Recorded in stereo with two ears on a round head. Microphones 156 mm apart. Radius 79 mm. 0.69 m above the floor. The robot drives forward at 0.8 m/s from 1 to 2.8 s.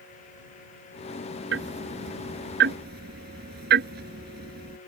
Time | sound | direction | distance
1.5 | ticking | 80° right | ?